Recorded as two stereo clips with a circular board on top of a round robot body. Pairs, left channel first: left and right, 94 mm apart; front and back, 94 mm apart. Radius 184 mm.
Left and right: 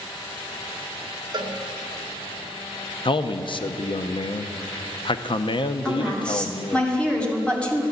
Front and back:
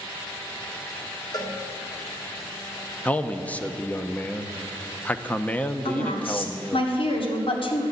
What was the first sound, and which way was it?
A cowbell, 45° right.